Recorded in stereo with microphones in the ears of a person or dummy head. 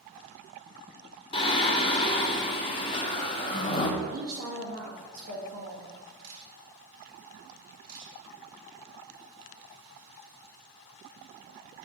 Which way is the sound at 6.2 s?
65° right (ahead or behind).